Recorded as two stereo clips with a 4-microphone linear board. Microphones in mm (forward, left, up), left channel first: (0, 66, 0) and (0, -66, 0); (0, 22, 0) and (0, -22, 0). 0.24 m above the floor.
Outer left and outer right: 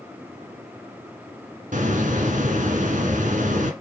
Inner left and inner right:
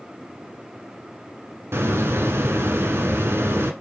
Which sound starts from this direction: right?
A hiss, at 1.7 s.